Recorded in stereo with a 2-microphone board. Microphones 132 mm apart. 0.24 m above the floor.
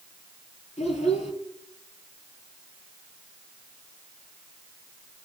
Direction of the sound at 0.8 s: 55° left (ahead or behind).